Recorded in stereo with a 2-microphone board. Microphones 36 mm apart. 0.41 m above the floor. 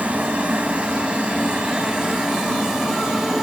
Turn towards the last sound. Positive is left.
turn(degrees=-10)  # may be behind; listen again after turning